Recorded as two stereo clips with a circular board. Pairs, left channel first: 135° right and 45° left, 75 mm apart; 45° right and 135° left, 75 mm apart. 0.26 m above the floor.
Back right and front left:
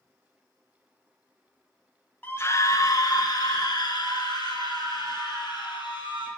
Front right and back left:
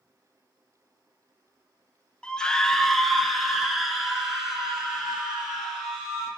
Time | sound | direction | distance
2.2 | a scream | 105° right | 1.1 m